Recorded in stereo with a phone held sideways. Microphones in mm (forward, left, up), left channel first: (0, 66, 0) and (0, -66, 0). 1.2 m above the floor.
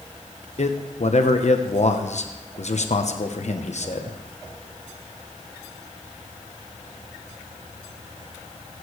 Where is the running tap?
I don't hear a running tap.